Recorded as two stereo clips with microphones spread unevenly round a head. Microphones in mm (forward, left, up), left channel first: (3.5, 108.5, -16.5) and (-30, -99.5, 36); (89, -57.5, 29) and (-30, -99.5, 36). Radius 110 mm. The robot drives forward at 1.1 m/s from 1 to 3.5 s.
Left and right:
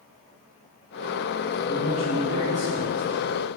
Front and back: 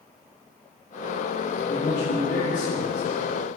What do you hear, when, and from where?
1.7 s a man speaking: 25° right, 3 m; by 3.1 s 50° right, 1.7 m